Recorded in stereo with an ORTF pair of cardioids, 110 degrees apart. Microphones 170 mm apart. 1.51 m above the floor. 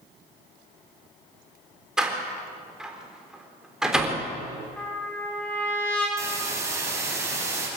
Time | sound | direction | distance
2.0 | a door slam | 5° right | 3.5 m
4.8 | a trumpet | 5° left | 8 m
6.2 | a hiss | 15° right | 7.5 m